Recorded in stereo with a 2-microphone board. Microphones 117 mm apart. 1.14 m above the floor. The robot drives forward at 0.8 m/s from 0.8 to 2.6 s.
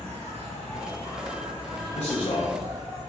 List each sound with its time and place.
0.0 s an insect: 60° right (ahead or behind), 1.0 m; by 3.1 s 30° right (ahead or behind), 1.8 m
1.9 s a man speaking: 70° left (ahead or behind), 0.6 m; by 2.5 s 40° left (ahead or behind), 0.9 m